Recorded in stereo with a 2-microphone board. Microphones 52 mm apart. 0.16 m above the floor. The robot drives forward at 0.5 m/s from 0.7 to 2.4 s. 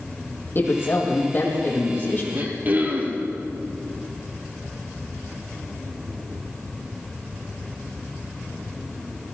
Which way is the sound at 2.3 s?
35° right (ahead or behind).